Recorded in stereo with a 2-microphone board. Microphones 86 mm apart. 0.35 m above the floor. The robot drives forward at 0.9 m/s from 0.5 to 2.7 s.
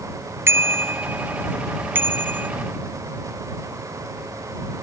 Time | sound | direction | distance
0.5 | a bicycle bell | 30° right (ahead or behind) | ?